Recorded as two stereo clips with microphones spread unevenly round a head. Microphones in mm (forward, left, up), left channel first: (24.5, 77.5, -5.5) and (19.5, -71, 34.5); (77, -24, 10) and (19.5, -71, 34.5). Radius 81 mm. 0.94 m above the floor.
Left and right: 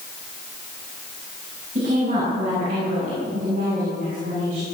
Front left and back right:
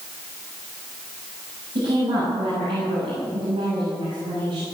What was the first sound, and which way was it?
A woman speaking, 140° right.